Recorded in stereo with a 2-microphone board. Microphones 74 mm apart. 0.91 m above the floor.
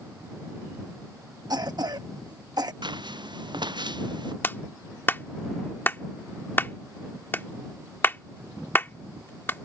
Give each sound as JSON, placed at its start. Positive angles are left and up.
{"t": 1.5, "sound": "a cough", "side_deg": -60}
{"t": 2.8, "sound": "footsteps", "side_deg": -75}
{"t": 4.4, "sound": "a clap", "side_deg": 25}